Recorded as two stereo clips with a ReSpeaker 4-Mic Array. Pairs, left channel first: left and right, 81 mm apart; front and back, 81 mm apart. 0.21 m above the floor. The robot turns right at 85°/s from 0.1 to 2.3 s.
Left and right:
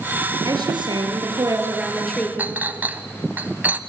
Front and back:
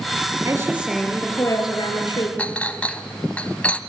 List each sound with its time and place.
0.5 s a woman speaking: 135° right, 3.5 m; by 2.3 s 25° left, 3.5 m
2.4 s a clink: 55° right, 0.8 m